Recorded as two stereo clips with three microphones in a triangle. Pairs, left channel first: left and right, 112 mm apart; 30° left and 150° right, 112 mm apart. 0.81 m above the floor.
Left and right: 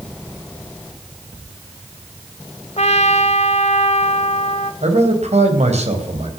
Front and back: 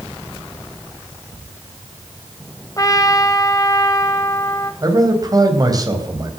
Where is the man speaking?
95° right, 4 m.